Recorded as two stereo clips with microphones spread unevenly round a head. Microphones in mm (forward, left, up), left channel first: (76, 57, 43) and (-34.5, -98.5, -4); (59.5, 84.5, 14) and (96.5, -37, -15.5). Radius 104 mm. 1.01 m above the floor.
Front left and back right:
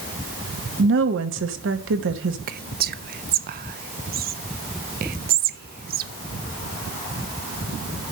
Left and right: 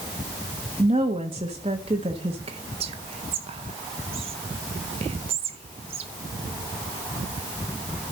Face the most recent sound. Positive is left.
turn(degrees=-105)